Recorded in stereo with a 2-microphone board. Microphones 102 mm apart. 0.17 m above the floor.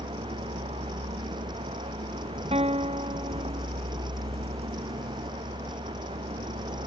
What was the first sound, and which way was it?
A vehicle, 70° right (ahead or behind).